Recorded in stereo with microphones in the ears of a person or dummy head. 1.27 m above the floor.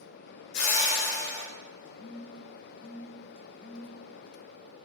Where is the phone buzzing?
30° left (ahead or behind), 0.9 m.